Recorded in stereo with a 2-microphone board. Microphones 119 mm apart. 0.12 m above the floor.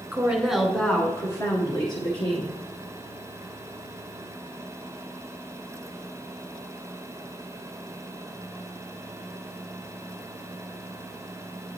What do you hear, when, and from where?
0.1 s a woman speaking: 15° right (ahead or behind), 1.1 m; by 2.6 s 50° left (ahead or behind), 1.6 m